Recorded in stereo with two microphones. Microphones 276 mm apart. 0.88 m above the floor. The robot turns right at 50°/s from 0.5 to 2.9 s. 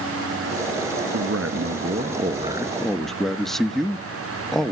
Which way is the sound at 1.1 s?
85° right.